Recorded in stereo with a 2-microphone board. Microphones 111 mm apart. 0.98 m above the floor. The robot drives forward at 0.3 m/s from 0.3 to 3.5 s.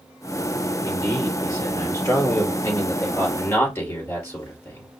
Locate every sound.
0.8 s a man speaking: 25° left (ahead or behind), 3 m; by 4.9 s 20° left (ahead or behind), 4 m